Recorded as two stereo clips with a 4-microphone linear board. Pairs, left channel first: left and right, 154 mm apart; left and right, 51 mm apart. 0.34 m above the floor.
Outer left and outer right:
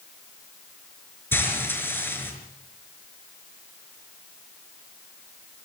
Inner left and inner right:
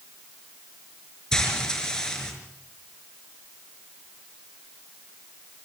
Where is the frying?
15° left (ahead or behind), 5.5 m.